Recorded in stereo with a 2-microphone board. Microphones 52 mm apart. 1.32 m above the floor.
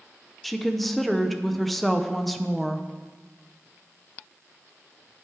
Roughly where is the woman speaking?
Centre.